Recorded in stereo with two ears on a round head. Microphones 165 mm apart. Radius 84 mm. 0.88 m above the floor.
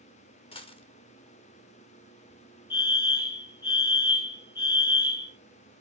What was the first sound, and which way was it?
A dropped coin, 30° left (ahead or behind).